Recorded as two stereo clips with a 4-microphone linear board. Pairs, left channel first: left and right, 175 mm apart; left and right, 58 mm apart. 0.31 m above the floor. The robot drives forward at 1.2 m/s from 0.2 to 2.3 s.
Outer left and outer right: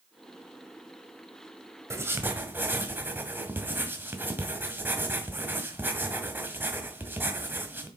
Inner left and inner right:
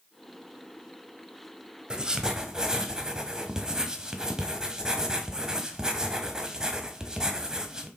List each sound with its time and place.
1.9 s writing: 15° right (ahead or behind), 1.1 m; by 7.9 s 10° right (ahead or behind), 1.5 m